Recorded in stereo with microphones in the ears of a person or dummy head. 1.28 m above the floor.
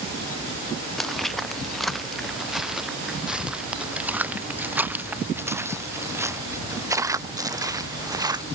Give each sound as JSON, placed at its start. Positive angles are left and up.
{"t": 1.0, "sound": "footsteps", "side_deg": 0}